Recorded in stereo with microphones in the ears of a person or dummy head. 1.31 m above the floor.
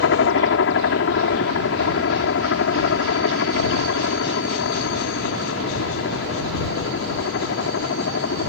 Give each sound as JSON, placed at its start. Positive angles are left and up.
{"t": 0.0, "sound": "a helicopter", "side_deg": 65}